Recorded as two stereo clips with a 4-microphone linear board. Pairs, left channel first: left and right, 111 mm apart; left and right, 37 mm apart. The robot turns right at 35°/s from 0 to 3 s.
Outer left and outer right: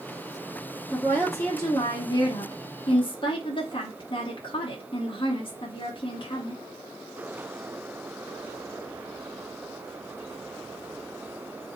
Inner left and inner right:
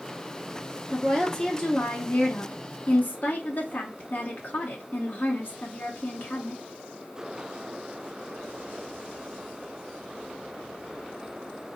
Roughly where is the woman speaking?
Ahead.